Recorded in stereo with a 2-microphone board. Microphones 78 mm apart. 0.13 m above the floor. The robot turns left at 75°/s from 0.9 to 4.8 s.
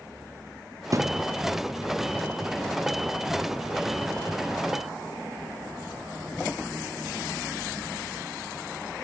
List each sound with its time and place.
0.9 s a thud: 45° right (ahead or behind); by 1.3 s 15° right (ahead or behind)